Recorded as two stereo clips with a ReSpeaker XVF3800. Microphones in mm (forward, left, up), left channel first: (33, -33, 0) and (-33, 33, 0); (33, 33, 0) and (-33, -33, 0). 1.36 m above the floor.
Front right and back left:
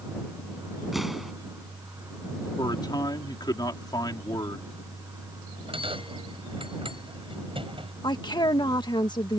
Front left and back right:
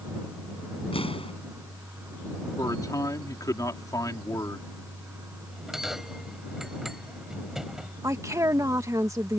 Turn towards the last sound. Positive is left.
turn(degrees=-80)